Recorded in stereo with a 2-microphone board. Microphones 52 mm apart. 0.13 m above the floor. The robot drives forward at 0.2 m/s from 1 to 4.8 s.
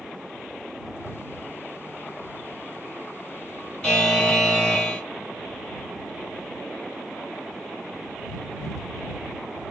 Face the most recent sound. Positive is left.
turn(degrees=15)  # may be behind; listen again after turning